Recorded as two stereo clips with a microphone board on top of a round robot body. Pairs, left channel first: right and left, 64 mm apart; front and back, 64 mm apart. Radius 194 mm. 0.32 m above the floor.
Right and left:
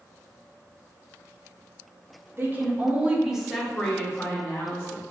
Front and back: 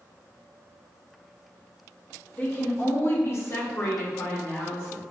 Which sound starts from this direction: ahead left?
A woman speaking, at 2.4 s.